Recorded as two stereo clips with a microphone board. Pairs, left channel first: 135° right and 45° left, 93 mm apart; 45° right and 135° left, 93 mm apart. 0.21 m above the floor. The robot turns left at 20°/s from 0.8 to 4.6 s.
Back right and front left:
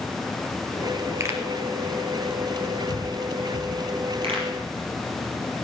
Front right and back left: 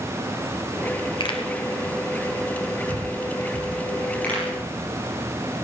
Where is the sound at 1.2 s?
15° right, 2.5 m.